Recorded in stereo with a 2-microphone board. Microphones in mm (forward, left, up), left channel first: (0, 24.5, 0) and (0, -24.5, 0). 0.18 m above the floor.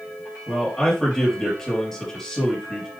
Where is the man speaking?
5° left (ahead or behind), 4 m.